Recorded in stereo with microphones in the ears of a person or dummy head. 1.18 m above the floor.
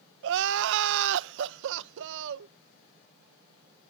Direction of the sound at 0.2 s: 65° right (ahead or behind).